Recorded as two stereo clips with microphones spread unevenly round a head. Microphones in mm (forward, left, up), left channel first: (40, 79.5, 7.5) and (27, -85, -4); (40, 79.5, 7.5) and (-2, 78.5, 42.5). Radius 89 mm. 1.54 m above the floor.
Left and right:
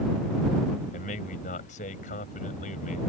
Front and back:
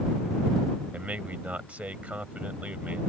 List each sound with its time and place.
0.9 s a man speaking: 135° left